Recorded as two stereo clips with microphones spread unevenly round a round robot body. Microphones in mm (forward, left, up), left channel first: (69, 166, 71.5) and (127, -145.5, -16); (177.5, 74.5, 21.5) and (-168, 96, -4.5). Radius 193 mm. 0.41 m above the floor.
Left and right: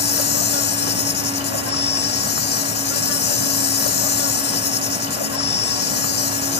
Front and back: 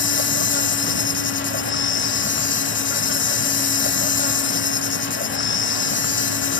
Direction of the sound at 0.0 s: 50° left.